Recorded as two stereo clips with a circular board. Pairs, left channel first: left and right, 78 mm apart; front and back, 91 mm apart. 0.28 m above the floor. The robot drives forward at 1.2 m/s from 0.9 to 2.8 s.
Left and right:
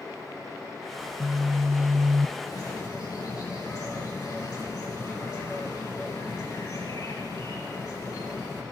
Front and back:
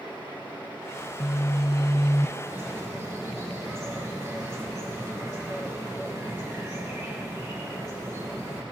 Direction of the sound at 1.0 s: 20° right.